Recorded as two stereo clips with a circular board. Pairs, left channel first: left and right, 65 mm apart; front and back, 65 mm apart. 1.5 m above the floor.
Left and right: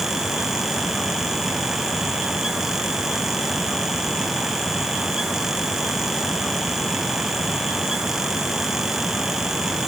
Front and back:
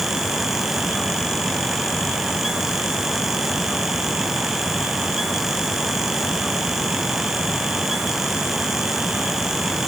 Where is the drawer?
No drawer in this recording.